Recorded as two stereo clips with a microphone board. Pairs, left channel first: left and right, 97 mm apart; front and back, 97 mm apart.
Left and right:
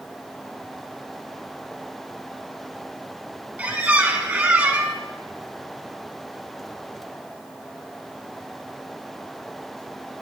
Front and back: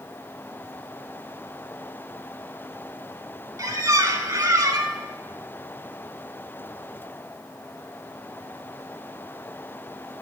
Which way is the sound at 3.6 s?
155° right.